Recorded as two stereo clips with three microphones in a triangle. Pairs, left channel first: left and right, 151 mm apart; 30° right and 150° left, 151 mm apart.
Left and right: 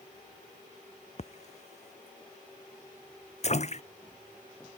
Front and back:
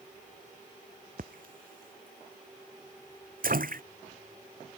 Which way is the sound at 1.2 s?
130° left.